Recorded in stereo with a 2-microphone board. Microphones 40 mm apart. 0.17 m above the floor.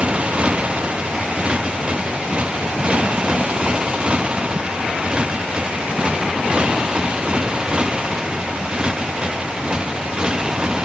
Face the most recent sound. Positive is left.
turn(degrees=-20)  # may be behind; listen again after turning